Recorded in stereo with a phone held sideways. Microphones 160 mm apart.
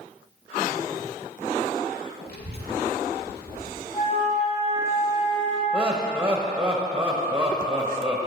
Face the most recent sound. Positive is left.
turn(degrees=-5)  # may be behind; listen again after turning